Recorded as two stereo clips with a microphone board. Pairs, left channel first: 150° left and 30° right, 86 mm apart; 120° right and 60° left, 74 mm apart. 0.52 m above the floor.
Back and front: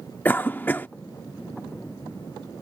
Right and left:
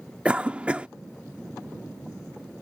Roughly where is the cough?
Behind left.